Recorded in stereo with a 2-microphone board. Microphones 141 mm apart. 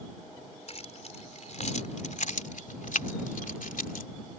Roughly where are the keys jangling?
Left.